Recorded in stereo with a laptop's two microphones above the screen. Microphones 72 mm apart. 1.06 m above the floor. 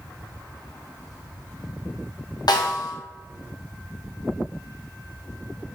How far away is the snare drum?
About 0.7 m.